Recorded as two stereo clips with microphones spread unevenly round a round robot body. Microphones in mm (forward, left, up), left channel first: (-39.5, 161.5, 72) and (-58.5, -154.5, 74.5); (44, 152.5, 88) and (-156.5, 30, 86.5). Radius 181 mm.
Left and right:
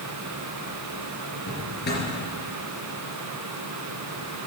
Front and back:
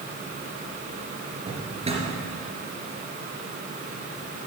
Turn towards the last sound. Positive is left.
turn(degrees=145)